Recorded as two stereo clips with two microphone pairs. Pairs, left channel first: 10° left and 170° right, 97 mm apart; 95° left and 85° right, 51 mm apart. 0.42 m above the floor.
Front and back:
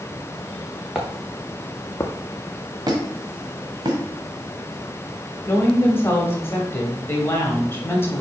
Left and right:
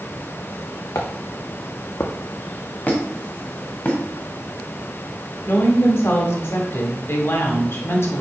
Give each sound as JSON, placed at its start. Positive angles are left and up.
{"t": 0.9, "sound": "footsteps", "azimuth_deg": 110, "distance_m": 1.7}
{"t": 2.9, "sound": "a squeak", "azimuth_deg": 150, "distance_m": 1.6}
{"t": 5.5, "sound": "a woman speaking", "azimuth_deg": 75, "distance_m": 1.9}